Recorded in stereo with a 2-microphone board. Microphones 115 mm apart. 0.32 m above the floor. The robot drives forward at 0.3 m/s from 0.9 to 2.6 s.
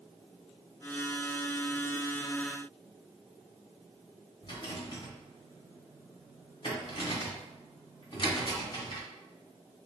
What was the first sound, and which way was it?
A rattle, 45° left (ahead or behind).